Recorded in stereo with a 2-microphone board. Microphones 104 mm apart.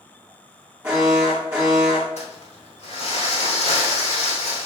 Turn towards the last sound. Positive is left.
turn(degrees=75)  # may be behind; listen again after turning